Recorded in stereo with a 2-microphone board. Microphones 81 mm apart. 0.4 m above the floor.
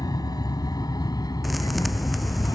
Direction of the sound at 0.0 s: 60° left (ahead or behind).